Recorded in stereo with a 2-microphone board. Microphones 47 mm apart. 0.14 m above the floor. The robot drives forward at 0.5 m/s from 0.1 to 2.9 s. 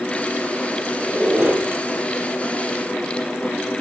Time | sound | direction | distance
1.0 | a squeak | 40° right (ahead or behind) | 3 m